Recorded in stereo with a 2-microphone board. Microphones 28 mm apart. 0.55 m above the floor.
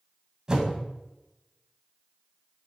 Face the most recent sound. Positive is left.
turn(degrees=-25)  # may be behind; listen again after turning